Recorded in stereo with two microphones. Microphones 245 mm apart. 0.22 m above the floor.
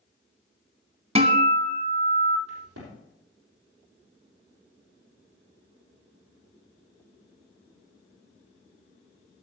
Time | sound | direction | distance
1.1 | a guitar | 25° right (ahead or behind) | 1.3 m
2.5 | a crack | 75° right (ahead or behind) | 7.5 m